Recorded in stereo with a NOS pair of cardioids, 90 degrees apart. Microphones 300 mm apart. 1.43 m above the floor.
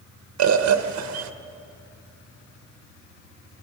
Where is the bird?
65° right, 1.6 m.